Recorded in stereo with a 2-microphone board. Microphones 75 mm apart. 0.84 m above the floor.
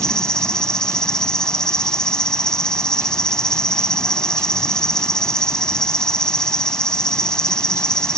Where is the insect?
10° left (ahead or behind).